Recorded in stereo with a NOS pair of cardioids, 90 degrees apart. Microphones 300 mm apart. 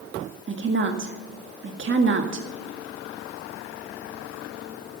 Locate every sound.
0.5 s a woman speaking: 40° right, 1.9 m